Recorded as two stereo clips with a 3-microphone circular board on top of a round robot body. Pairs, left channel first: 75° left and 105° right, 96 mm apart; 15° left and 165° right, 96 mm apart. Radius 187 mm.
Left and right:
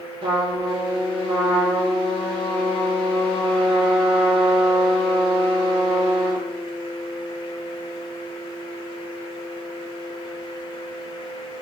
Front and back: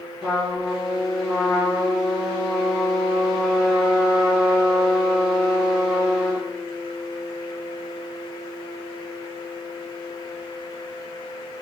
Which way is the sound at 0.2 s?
70° right.